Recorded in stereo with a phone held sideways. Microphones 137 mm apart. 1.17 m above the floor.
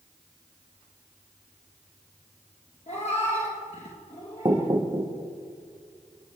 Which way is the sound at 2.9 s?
55° left (ahead or behind).